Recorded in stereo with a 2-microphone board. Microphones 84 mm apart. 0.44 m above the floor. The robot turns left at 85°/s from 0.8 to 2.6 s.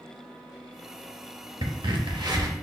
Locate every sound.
1.6 s a crack: 60° right, 0.8 m; by 2.5 s 135° right, 0.8 m